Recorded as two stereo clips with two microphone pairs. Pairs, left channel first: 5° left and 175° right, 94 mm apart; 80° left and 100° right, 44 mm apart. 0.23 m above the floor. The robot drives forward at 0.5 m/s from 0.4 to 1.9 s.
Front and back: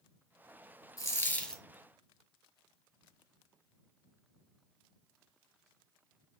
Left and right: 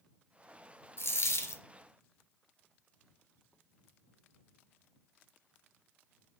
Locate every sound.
1.0 s a dropped coin: 60° left, 0.6 m; by 1.6 s 95° left, 0.5 m